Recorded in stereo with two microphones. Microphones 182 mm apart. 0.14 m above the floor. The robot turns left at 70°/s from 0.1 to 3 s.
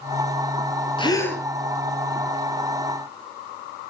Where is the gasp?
35° left, 2.5 m; by 1.4 s straight ahead, 2.5 m.